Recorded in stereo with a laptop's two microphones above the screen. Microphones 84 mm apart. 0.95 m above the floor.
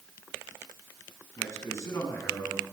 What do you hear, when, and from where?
1.4 s a man speaking: 40° left (ahead or behind), 9 m; by 2.6 s 35° left (ahead or behind), 9 m